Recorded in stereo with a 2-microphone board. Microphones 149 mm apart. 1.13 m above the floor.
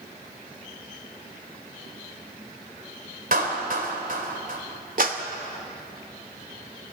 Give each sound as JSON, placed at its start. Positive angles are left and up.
{"t": 3.3, "sound": "a clap", "side_deg": -65, "distance_m": 4.0}
{"t": 5.0, "sound": "a clap", "side_deg": -60, "distance_m": 2.0}